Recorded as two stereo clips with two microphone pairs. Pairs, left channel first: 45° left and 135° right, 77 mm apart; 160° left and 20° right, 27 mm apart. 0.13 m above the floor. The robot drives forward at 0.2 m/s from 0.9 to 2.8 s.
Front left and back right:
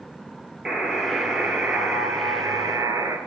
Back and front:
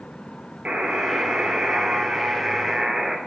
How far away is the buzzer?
About 0.6 m.